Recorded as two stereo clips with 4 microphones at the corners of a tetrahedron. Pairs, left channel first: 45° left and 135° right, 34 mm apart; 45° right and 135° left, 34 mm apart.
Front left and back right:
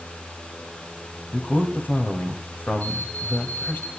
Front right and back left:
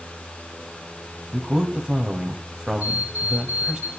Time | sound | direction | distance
1.3 | a man speaking | 70° left | 2.0 m
2.8 | an alarm clock | 90° left | 5 m